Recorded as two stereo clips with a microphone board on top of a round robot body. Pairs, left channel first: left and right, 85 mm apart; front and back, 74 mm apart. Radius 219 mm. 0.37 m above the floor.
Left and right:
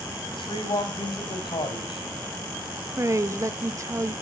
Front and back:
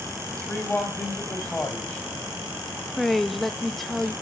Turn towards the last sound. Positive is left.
turn(degrees=-85)